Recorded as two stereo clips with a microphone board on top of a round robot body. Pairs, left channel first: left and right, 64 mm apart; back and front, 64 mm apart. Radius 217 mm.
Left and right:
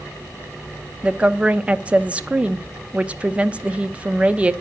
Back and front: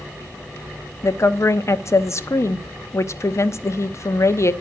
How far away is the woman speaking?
About 1.1 m.